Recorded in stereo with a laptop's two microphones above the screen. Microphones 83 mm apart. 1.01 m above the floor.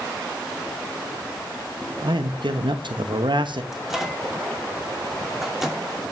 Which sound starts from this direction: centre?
A microwave, at 3.7 s.